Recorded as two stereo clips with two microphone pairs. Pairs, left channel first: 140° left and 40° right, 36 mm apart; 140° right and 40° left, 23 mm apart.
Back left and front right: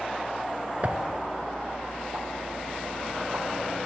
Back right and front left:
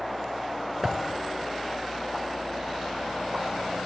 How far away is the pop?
About 1.4 m.